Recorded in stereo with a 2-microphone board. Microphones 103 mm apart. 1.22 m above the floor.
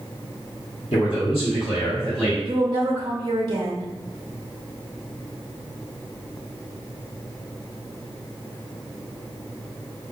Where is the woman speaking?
50° right (ahead or behind), 0.9 m.